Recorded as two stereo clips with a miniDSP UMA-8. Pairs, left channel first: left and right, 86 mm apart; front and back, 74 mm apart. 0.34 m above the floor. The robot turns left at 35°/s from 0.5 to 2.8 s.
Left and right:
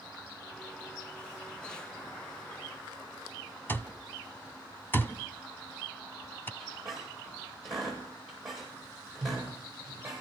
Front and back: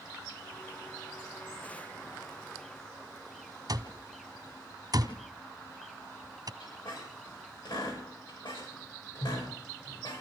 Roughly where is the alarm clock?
Behind left.